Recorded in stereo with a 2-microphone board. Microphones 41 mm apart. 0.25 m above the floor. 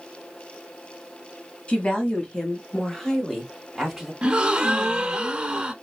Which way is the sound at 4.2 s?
25° right (ahead or behind).